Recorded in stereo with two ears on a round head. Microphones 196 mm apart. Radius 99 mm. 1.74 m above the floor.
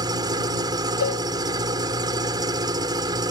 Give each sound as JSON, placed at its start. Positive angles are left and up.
{"t": 0.0, "sound": "an engine running", "side_deg": -20}
{"t": 1.0, "sound": "a cowbell", "side_deg": 70}